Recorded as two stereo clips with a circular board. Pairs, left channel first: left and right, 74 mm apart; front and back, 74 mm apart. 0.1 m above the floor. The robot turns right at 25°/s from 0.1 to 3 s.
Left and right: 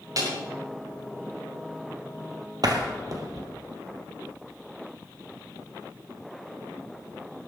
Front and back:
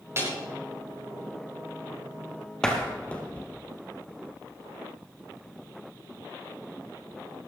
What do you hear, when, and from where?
0.2 s a snare drum: 125° right, 6.5 m; by 0.3 s 120° right, 6.5 m
2.6 s a door slam: 80° right, 2 m; by 3.5 s 70° right, 2 m